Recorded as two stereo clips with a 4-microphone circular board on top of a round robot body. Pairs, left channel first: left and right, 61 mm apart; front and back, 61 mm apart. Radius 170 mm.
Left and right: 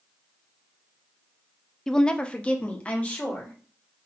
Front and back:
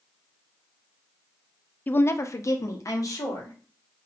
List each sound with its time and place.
1.9 s a woman speaking: 15° left, 0.5 m; by 3.6 s 20° left, 1.7 m